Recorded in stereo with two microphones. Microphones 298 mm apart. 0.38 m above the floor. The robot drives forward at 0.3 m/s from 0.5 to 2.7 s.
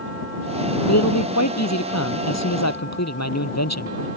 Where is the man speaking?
65° left (ahead or behind).